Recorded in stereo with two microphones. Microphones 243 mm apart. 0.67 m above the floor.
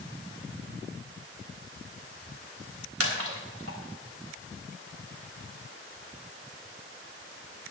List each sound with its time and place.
3.0 s a splash: 70° right (ahead or behind), 3.5 m